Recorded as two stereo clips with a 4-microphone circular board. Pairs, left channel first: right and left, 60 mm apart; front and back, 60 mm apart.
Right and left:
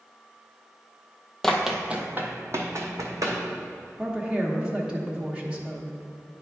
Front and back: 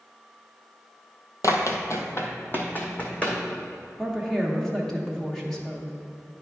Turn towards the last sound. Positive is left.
turn(degrees=70)